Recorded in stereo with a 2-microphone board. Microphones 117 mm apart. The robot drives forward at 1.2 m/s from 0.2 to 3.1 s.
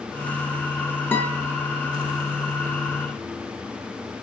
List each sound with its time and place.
1.1 s a guitar: 15° left (ahead or behind), 2 m